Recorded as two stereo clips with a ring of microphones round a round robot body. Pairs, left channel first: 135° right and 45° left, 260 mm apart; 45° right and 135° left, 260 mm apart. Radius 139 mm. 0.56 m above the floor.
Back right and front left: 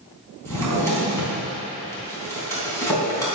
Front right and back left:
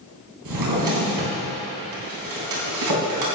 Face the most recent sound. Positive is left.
turn(degrees=145)